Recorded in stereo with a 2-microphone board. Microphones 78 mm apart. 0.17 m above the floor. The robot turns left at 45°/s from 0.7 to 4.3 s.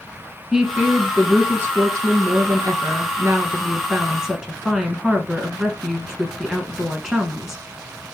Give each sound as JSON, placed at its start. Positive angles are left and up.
{"t": 0.5, "sound": "a woman speaking", "azimuth_deg": -10, "distance_m": 1.4}